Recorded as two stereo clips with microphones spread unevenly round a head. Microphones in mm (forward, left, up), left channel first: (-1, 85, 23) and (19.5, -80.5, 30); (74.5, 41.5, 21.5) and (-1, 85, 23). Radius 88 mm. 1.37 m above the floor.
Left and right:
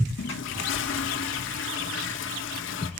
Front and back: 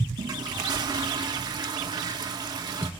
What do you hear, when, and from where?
0.2 s a toilet flushing: 115° left, 1.7 m